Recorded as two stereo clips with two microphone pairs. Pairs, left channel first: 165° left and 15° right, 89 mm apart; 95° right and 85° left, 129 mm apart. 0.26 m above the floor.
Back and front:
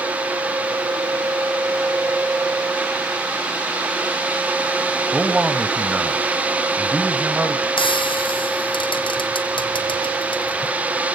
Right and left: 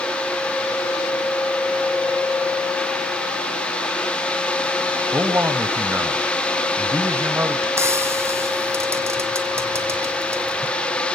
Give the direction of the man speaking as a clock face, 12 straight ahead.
11 o'clock.